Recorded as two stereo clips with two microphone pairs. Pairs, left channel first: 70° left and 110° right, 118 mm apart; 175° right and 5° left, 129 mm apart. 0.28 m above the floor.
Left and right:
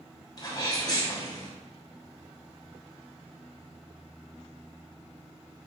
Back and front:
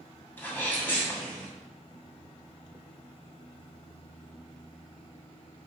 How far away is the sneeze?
About 2.5 m.